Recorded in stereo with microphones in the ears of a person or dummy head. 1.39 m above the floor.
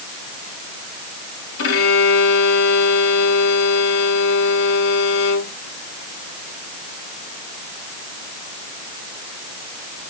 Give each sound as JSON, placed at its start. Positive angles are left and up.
{"t": 1.6, "sound": "a violin", "side_deg": 75, "distance_m": 3.0}